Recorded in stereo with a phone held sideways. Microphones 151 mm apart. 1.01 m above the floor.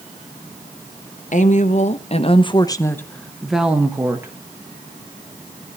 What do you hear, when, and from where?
1.3 s a woman speaking: 55° left (ahead or behind), 1.1 m; by 4.3 s 20° right (ahead or behind), 1.3 m